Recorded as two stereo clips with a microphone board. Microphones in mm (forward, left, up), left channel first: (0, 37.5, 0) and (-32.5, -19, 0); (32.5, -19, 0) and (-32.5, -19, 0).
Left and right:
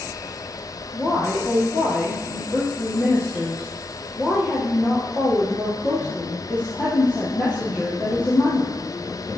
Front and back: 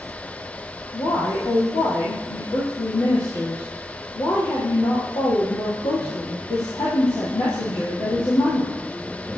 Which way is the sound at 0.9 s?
5° right.